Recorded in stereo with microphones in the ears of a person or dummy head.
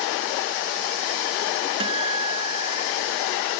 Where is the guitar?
30° right (ahead or behind).